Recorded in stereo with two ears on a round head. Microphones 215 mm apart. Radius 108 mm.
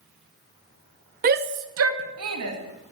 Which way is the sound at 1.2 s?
35° right (ahead or behind).